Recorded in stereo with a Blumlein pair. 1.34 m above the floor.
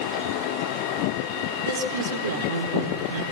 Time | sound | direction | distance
1.6 | a woman speaking | 60° right | 4.5 m